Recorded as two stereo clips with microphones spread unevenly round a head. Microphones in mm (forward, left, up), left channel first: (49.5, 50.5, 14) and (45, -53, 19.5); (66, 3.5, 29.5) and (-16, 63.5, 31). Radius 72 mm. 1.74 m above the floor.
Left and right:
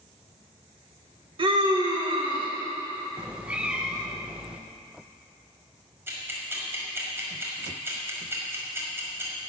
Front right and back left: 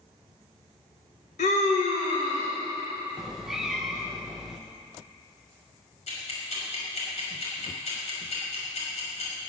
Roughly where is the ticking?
Ahead right.